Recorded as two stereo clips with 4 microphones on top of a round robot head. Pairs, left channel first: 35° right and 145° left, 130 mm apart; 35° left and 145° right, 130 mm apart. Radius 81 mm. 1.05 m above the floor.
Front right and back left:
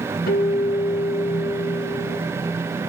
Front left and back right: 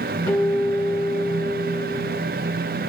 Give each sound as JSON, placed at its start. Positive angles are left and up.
{"t": 0.3, "sound": "a guitar", "azimuth_deg": -40, "distance_m": 3.0}